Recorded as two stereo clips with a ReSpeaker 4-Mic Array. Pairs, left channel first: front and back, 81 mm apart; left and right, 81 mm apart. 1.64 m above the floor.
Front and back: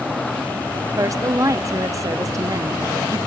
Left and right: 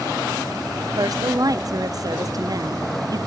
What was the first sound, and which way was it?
A woman speaking, 130° right.